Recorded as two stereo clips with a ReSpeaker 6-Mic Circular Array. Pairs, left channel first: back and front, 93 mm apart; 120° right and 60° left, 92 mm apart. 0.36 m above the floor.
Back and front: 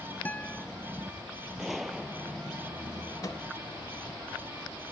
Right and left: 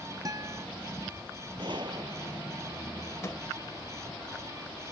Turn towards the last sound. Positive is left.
turn(degrees=-160)